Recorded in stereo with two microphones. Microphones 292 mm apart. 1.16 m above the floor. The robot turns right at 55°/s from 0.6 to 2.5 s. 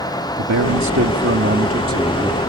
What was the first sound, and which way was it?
A man speaking, 90° right.